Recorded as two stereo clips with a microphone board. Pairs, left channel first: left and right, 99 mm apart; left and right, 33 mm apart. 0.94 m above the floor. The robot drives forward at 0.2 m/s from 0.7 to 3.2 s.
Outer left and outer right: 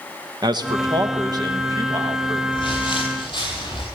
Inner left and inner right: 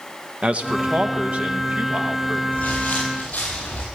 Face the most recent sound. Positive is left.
turn(degrees=50)  # may be behind; listen again after turning